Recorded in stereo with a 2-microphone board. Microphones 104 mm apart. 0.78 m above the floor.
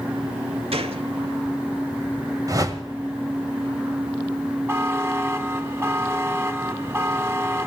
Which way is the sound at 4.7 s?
25° right (ahead or behind).